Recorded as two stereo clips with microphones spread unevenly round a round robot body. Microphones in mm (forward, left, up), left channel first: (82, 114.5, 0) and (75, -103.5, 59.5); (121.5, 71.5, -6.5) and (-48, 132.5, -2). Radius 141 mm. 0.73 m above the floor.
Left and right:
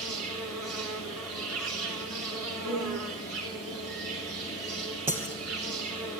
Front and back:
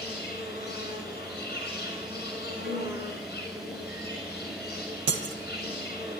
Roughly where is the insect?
Behind right.